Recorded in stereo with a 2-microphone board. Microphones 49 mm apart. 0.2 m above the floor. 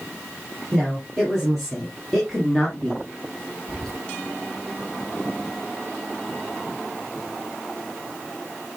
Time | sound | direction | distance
0.7 | a woman speaking | 5° left (ahead or behind) | 5 m
3.7 | whispering | 10° left (ahead or behind) | 2.5 m